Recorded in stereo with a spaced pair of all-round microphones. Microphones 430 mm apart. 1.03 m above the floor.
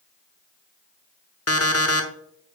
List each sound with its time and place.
1.5 s an alarm clock: 35° left (ahead or behind), 0.8 m